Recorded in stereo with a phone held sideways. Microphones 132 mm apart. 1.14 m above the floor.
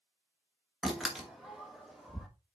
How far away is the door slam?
About 1.4 m.